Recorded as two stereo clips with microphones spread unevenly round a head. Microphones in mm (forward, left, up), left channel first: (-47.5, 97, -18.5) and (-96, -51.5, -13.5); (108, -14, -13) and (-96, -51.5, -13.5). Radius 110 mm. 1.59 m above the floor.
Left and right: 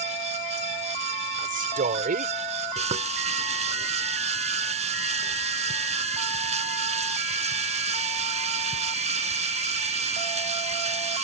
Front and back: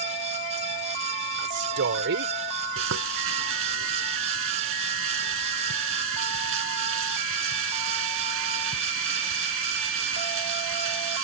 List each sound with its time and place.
1.4 s a man speaking: 140° right
2.8 s frying: 150° right